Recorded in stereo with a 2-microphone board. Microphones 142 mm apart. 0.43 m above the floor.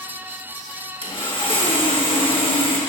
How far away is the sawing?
About 1.4 m.